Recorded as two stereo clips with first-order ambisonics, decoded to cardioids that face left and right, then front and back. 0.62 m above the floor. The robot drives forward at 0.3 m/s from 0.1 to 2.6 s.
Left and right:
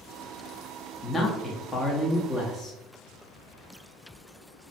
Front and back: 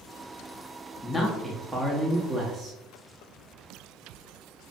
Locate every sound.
1.0 s a man speaking: 50° left, 0.6 m; by 2.8 s 155° left, 0.7 m